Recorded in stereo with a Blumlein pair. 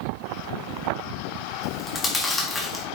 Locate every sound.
1.6 s chewing: 15° left, 4 m